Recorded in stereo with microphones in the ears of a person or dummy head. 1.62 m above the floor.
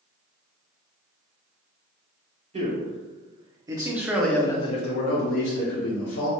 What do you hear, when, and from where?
2.5 s a man speaking: 45° right (ahead or behind), 1.3 m; by 6.3 s 80° left, 1.1 m